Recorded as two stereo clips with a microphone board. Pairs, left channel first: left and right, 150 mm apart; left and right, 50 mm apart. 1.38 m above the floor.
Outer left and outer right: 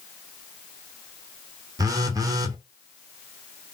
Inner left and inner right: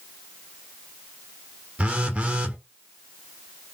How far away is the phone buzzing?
About 0.7 m.